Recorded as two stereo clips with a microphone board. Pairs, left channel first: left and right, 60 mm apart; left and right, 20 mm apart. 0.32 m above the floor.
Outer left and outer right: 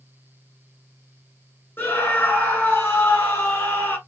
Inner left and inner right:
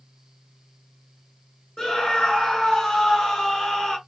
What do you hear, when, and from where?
1.8 s a scream: 30° left (ahead or behind), 1.4 m